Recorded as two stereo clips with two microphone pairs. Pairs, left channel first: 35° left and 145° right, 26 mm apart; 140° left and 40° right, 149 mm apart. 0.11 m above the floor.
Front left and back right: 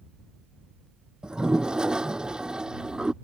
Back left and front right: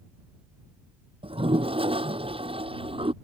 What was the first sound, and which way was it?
A toilet flushing, 90° right.